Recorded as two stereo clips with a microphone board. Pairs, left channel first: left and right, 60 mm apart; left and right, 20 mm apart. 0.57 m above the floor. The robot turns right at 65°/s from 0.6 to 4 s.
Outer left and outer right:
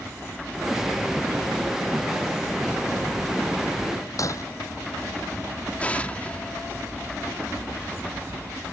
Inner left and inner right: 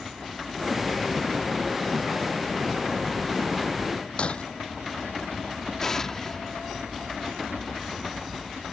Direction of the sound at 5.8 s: 25° left (ahead or behind).